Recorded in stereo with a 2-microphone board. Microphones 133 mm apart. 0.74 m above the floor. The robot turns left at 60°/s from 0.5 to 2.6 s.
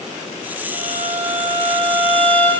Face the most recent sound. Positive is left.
turn(degrees=160)